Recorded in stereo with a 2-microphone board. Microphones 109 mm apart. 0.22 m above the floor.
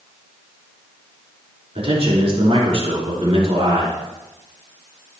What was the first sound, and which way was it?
A man speaking, 55° right (ahead or behind).